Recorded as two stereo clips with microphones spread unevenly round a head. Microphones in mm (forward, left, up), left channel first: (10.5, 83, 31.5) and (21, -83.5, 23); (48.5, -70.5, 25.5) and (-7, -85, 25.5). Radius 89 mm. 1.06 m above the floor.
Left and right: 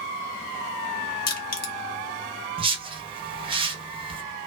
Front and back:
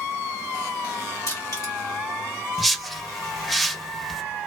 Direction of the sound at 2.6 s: 80° right.